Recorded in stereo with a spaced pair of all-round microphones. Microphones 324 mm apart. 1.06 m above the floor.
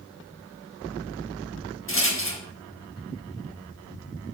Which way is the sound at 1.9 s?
40° left (ahead or behind).